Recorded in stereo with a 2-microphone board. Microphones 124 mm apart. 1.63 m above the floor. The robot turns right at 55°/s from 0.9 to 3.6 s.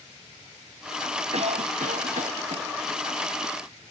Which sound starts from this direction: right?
A cough, at 1.3 s.